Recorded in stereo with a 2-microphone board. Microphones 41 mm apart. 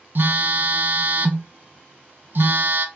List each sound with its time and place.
0.1 s a phone buzzing: 60° right (ahead or behind), 0.5 m